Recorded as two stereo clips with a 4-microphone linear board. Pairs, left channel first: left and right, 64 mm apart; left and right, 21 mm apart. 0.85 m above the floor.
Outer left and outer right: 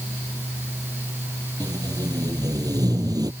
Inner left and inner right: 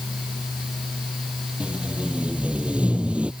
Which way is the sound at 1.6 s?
80° right.